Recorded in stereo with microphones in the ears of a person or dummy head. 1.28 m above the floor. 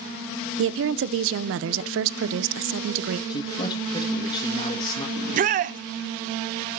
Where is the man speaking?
30° left (ahead or behind), 1.7 m.